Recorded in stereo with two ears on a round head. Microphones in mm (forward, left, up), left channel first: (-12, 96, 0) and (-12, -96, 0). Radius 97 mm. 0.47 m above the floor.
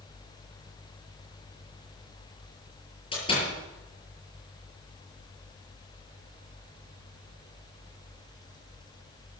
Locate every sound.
3.1 s a door slam: 25° left (ahead or behind), 7 m